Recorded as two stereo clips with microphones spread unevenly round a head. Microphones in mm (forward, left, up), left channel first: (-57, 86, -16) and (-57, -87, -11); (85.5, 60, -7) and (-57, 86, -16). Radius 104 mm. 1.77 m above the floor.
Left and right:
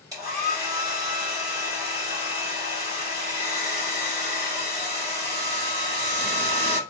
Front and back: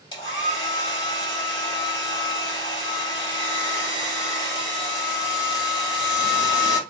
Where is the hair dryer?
40° right, 1.5 m.